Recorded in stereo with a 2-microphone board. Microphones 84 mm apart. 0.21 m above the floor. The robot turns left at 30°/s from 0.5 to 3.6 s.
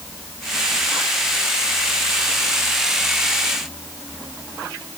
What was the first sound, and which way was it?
Only background noise.